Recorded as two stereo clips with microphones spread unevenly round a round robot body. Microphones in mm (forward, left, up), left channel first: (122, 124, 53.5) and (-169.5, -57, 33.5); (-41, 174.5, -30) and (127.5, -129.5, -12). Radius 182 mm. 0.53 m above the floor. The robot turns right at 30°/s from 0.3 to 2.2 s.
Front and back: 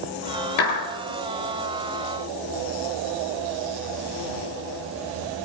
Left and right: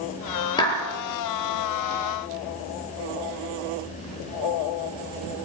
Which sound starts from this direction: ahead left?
A clap, at 0.6 s.